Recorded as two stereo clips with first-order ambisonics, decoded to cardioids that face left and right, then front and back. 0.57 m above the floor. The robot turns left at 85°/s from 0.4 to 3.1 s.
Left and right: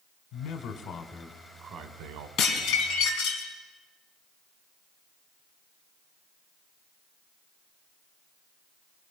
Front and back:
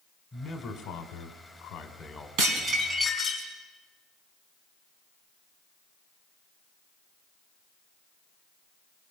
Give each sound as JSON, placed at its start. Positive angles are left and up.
{"t": 0.3, "sound": "a man speaking", "azimuth_deg": 70, "distance_m": 2.0}
{"t": 2.4, "sound": "dishes clattering", "azimuth_deg": 140, "distance_m": 4.0}